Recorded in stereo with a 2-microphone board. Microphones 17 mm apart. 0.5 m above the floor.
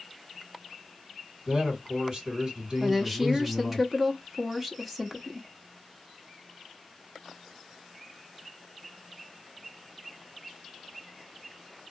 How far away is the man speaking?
About 2 m.